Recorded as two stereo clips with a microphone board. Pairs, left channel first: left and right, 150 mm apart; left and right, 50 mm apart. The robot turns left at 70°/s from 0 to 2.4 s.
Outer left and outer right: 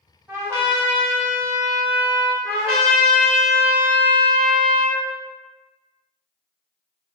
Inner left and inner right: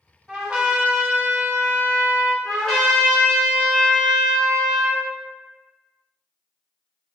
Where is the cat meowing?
I don't hear a cat meowing.